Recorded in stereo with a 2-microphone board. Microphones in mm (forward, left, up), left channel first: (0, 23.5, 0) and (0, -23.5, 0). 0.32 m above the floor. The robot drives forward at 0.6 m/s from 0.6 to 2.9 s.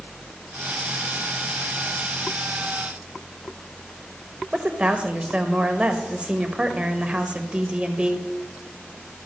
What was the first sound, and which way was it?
A woman speaking, 25° right (ahead or behind).